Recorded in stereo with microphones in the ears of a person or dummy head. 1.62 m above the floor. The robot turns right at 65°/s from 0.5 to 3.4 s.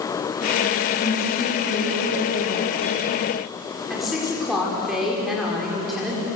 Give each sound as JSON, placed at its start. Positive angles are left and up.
{"t": 1.0, "sound": "a woman speaking", "azimuth_deg": 55, "distance_m": 4.5}
{"t": 3.9, "sound": "a woman speaking", "side_deg": 0, "distance_m": 5.0}